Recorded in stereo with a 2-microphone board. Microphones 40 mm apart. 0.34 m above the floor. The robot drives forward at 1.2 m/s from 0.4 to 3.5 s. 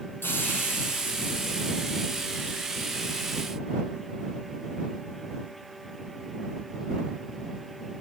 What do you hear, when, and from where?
0.2 s a hiss: 65° left (ahead or behind), 4.5 m; by 2.5 s 80° left, 4 m